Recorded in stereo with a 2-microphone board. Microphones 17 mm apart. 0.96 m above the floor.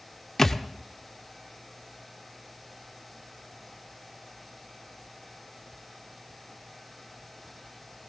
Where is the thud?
25° left (ahead or behind), 0.9 m.